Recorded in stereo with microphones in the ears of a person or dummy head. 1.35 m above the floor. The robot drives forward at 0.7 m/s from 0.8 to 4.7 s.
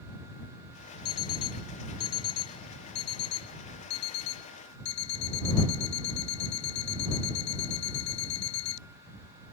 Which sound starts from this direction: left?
An alarm clock, at 1.1 s.